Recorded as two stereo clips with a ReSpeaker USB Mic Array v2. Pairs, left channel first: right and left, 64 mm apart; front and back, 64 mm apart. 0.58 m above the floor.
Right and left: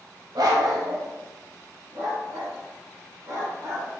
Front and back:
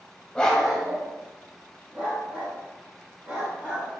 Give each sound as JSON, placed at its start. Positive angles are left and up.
{"t": 0.3, "sound": "a dog barking", "azimuth_deg": 75, "distance_m": 1.2}